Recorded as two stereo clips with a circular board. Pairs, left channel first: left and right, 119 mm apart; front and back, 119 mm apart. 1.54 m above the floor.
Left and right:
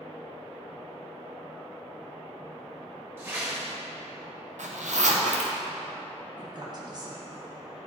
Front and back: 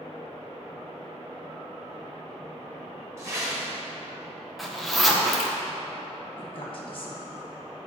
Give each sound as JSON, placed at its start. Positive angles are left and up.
{"t": 3.2, "sound": "a whoosh", "azimuth_deg": -140, "distance_m": 1.4}
{"t": 4.6, "sound": "a zipper", "azimuth_deg": -90, "distance_m": 0.7}
{"t": 6.4, "sound": "a woman speaking", "azimuth_deg": -40, "distance_m": 1.1}